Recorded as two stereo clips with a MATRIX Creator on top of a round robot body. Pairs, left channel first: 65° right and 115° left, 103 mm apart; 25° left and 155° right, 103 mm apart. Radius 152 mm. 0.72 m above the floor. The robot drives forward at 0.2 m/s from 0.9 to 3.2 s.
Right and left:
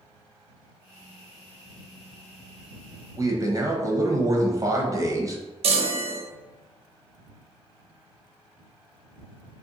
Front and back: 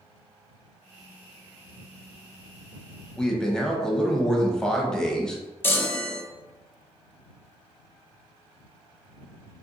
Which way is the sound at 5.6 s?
95° left.